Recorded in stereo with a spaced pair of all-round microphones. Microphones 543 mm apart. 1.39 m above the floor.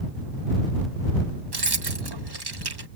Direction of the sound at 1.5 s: 45° right (ahead or behind).